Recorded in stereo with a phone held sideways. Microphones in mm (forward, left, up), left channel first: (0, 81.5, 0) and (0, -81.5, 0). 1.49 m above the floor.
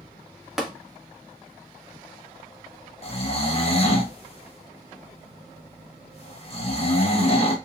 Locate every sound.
0.6 s tapping: centre (ahead or behind), 0.7 m
3.0 s snoring: 40° left (ahead or behind), 0.6 m